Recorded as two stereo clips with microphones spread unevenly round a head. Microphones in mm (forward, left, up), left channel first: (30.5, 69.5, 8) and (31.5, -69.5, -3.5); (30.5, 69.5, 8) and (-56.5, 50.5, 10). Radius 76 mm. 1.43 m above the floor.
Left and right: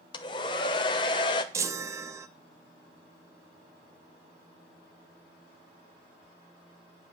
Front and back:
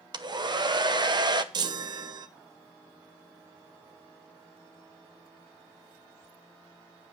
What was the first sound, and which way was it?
A hair dryer, 155° left.